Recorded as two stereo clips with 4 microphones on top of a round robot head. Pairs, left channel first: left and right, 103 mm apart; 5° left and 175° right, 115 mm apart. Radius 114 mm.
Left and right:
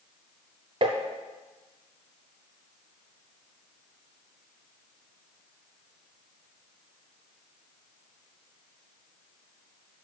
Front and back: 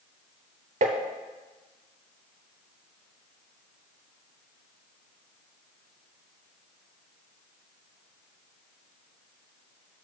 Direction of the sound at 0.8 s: 140° right.